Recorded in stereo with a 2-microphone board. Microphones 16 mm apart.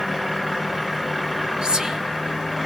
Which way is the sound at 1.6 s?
60° right (ahead or behind).